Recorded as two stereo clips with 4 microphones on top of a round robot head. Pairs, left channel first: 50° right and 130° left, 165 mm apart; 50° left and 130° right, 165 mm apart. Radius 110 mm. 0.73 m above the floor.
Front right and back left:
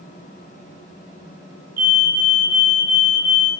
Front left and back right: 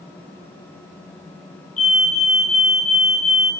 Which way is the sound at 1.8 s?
95° left.